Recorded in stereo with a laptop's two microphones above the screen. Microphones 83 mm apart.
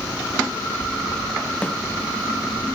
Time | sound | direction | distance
1.6 | a snare drum | 15° left (ahead or behind) | 1.4 m